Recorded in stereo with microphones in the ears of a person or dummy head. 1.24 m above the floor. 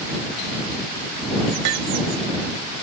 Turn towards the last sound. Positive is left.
turn(degrees=-80)